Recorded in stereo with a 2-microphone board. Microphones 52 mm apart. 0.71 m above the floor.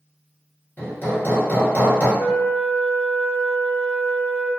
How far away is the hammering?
About 1.0 m.